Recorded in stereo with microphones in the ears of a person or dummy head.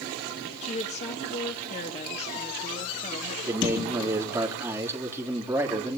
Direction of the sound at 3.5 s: 10° right (ahead or behind).